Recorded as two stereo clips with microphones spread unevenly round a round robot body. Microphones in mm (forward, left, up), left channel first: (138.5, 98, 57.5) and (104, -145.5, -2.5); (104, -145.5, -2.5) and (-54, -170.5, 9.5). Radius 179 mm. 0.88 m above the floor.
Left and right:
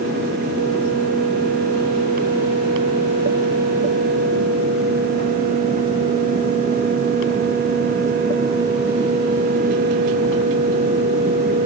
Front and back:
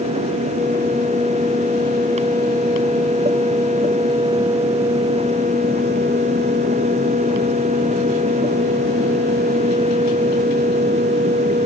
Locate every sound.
Only background noise.